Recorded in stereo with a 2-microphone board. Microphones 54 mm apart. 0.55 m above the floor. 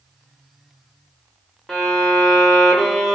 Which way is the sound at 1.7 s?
5° left (ahead or behind).